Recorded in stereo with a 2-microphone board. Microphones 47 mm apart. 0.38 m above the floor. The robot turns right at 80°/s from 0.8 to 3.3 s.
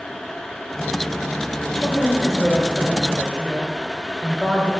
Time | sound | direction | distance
1.6 | a woman speaking | 25° left (ahead or behind) | 1.2 m